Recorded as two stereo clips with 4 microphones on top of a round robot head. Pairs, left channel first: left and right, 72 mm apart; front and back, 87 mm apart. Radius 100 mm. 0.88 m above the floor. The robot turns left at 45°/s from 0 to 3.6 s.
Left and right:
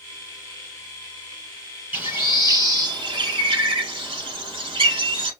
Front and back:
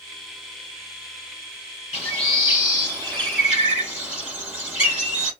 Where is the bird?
25° right, 4 m; by 5.3 s 100° right, 4 m.